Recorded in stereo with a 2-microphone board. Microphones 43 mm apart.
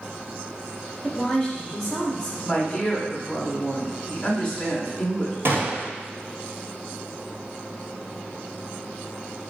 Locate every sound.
1.0 s a woman speaking: 15° left (ahead or behind), 1.2 m
2.5 s a woman speaking: 10° left (ahead or behind), 1.6 m
5.5 s a gunshot: 65° right (ahead or behind), 1.0 m